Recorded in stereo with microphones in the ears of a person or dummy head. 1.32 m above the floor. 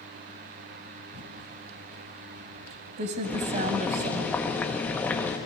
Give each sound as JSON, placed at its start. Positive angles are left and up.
{"t": 1.1, "sound": "typing on a keyboard", "side_deg": -40, "distance_m": 1.6}
{"t": 3.2, "sound": "boiling", "side_deg": 10, "distance_m": 1.6}